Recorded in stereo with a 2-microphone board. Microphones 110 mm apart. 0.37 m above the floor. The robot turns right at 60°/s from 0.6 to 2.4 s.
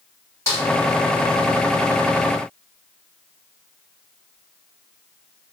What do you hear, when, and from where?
0.5 s a snare drum: 25° left (ahead or behind), 1.6 m